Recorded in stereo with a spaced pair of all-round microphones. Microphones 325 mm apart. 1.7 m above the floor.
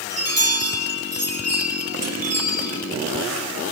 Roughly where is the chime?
Right.